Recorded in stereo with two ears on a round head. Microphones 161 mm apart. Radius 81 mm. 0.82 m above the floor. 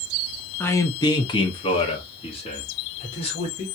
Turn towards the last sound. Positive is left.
turn(degrees=35)  # may be behind; listen again after turning